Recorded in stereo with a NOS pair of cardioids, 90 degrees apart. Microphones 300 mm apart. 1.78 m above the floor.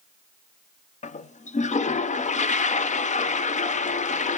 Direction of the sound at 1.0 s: 25° left.